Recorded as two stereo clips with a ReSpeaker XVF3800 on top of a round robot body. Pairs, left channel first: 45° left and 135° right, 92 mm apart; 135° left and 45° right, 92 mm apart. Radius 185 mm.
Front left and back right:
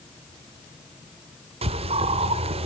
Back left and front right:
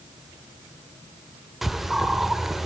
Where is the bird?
130° right, 0.6 m.